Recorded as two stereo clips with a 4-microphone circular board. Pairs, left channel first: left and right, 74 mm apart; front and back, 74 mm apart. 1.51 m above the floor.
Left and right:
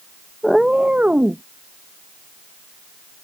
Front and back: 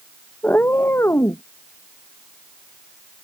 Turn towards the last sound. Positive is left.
turn(degrees=-35)